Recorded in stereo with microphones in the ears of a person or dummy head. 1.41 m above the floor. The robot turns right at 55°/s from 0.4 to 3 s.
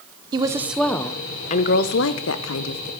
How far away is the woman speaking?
About 0.8 m.